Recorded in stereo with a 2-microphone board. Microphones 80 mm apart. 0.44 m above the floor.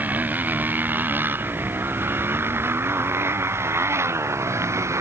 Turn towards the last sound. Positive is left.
turn(degrees=-35)  # may be behind; listen again after turning